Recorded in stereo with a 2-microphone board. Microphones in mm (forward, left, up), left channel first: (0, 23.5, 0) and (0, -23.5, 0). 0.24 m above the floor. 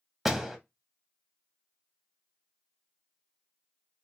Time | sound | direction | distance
0.2 | a door slam | 5° right (ahead or behind) | 0.7 m